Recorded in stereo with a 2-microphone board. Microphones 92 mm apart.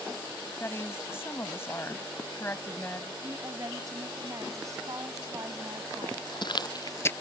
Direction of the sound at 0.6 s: 25° left (ahead or behind).